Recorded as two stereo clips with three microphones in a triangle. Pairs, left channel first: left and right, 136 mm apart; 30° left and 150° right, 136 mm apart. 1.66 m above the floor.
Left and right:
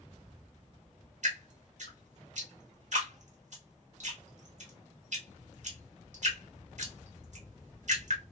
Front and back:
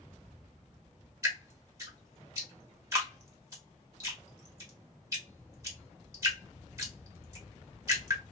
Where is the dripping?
85° right, 1.6 m.